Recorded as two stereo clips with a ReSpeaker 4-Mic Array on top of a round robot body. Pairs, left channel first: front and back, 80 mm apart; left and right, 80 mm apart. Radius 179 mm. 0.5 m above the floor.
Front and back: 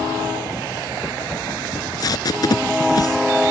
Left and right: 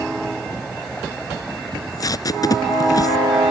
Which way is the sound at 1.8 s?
45° left.